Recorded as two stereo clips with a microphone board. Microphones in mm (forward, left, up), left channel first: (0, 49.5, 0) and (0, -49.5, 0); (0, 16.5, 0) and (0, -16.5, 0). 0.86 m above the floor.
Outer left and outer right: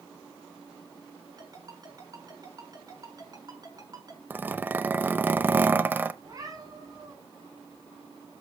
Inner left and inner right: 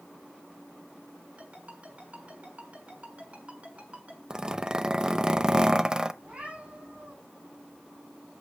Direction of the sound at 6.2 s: 40° right (ahead or behind).